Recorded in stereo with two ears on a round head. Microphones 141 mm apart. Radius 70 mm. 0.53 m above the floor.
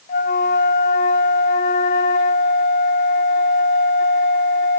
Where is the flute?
50° left (ahead or behind), 0.5 m.